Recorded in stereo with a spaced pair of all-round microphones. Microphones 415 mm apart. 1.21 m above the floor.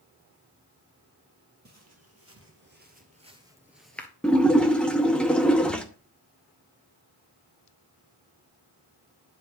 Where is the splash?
5° left (ahead or behind), 0.8 m.